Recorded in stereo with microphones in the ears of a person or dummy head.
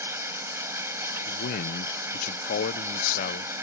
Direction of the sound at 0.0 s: 20° right (ahead or behind).